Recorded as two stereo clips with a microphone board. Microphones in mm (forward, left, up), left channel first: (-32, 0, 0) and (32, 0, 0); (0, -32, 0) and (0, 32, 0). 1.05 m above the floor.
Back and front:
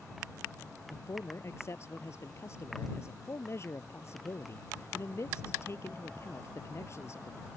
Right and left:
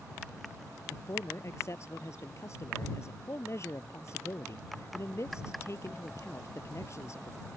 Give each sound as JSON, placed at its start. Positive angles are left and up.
{"t": 0.9, "sound": "a man speaking", "azimuth_deg": -135}